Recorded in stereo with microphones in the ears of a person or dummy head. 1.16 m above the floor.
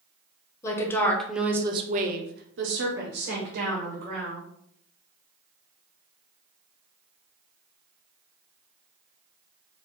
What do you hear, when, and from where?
0.6 s a woman speaking: 15° left (ahead or behind), 1.0 m; by 4.4 s 50° right (ahead or behind), 1.9 m